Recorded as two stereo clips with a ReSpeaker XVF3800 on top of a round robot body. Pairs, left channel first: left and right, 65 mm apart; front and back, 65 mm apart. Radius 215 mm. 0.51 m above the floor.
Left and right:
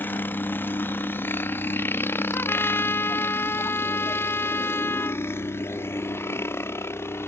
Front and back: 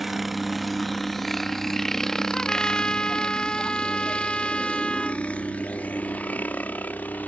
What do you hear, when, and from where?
0.0 s a helicopter: 95° left; by 7.3 s 55° left
2.3 s a trumpet: 70° left